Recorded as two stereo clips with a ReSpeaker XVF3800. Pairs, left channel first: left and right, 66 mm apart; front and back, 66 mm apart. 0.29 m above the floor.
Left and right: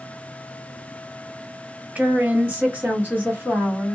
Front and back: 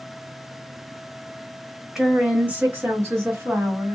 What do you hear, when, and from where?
1.9 s a woman speaking: 100° right, 0.9 m; by 4.0 s 150° right, 1.9 m